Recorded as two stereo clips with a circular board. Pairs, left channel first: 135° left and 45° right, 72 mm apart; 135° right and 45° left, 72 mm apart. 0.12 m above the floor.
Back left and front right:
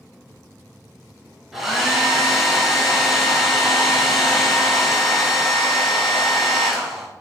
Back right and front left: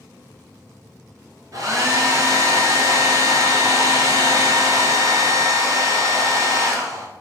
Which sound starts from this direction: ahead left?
A hair dryer, at 1.5 s.